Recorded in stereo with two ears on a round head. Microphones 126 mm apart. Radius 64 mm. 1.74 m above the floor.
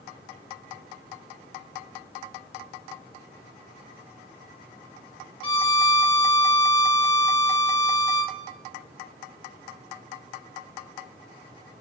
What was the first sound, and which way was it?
A violin, 40° left (ahead or behind).